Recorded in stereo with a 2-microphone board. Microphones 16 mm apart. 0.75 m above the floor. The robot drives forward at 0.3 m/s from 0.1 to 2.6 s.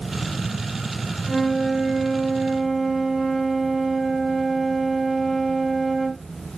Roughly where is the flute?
Centre.